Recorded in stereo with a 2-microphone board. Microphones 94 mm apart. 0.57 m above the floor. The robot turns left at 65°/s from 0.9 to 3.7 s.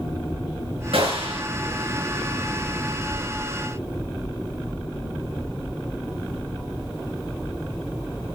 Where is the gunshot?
75° right, 7 m; by 1.4 s 110° right, 7 m.